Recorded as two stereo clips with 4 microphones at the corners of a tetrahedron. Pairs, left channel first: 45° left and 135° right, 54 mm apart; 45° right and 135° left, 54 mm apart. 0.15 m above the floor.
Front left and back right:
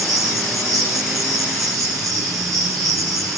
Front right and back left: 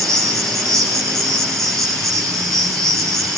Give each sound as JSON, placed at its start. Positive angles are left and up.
{"t": 0.0, "sound": "an insect", "azimuth_deg": -130, "distance_m": 4.0}